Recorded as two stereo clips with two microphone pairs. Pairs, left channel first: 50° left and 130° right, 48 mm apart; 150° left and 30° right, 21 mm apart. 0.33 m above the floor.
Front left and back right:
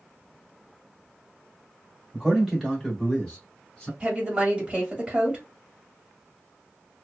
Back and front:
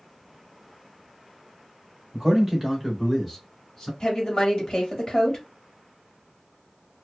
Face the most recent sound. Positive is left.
turn(degrees=175)